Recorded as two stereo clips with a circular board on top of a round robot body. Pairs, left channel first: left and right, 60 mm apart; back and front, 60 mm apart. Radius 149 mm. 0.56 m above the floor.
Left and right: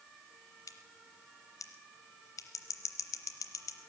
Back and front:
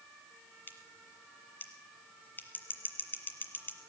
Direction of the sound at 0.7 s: 120° left.